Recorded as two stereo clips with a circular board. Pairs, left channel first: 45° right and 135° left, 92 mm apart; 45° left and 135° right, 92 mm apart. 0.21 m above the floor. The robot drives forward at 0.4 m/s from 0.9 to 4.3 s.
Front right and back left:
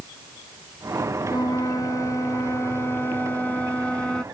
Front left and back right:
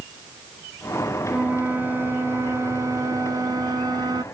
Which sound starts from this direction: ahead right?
A flute, at 1.3 s.